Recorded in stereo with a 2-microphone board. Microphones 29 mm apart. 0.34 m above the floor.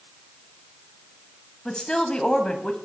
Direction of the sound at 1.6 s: 25° left (ahead or behind).